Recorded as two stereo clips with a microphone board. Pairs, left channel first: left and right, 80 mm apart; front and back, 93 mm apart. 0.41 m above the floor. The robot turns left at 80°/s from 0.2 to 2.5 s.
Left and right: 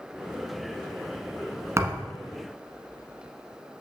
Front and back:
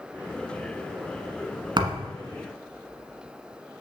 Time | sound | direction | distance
1.8 | a thud | 145° right | 1.3 m